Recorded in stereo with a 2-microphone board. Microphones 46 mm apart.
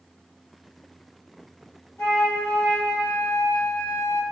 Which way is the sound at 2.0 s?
60° left (ahead or behind).